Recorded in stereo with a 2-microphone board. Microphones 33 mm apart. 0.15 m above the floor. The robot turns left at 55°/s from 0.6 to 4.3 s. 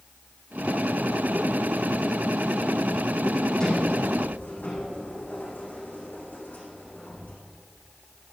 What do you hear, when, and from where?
3.6 s a sliding door: 155° left, 5.5 m; by 7.4 s 120° left, 5.5 m